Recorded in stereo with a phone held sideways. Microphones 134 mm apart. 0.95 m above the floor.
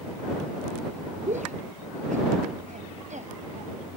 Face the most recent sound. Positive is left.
turn(degrees=-65)  # may be behind; listen again after turning